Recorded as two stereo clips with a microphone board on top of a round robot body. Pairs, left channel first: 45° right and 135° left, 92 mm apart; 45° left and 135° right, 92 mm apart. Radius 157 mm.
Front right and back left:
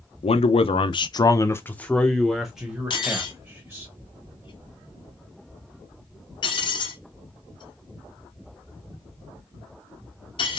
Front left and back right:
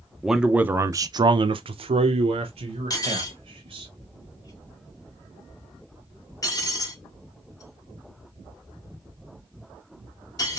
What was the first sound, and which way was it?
A man speaking, 45° right.